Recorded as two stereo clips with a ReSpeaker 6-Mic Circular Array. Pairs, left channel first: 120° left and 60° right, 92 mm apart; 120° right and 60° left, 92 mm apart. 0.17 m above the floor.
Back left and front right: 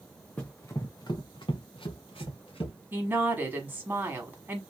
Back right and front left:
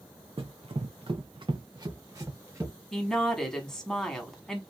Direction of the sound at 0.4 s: 45° left.